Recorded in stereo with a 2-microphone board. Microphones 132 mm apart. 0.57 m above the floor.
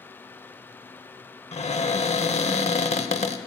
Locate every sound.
1.5 s a cupboard door: 55° left (ahead or behind), 0.8 m